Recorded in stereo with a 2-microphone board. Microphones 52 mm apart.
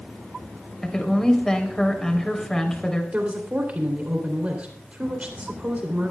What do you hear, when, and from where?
0.8 s a woman speaking: 10° left (ahead or behind), 3.5 m
3.1 s a woman speaking: 30° right (ahead or behind), 3 m